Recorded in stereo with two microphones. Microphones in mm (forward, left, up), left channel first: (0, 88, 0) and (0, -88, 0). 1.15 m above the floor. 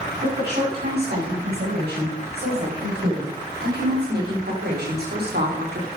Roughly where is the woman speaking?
Right.